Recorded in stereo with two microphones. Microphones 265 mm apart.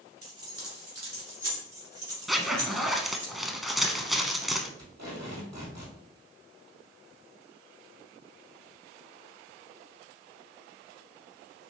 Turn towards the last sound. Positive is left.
turn(degrees=-80)